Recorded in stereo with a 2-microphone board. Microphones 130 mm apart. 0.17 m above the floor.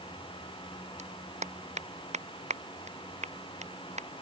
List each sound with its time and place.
1.0 s a clap: 60° right (ahead or behind)